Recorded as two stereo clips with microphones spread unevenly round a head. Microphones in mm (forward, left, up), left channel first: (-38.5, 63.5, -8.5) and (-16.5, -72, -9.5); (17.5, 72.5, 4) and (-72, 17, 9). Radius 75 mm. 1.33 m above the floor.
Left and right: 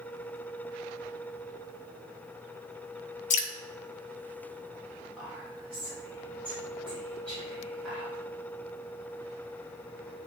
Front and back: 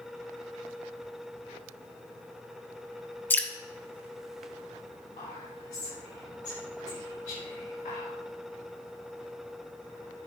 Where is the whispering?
15° left, 3.5 m.